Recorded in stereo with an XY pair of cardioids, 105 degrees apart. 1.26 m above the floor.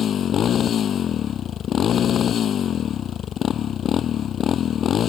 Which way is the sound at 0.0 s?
55° left.